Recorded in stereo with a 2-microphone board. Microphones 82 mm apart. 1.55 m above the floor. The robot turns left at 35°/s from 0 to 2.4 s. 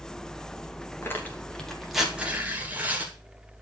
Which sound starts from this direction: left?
Tearing paper, at 1.0 s.